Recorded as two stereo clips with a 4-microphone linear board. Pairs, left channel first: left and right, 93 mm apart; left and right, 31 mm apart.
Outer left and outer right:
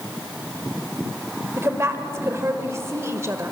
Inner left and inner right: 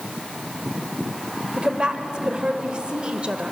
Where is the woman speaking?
30° right (ahead or behind), 1.3 m.